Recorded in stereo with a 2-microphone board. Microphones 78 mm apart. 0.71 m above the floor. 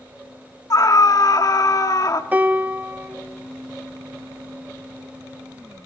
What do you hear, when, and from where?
0.7 s a scream: 50° left (ahead or behind), 1.5 m
2.3 s a piano: 20° right (ahead or behind), 1.3 m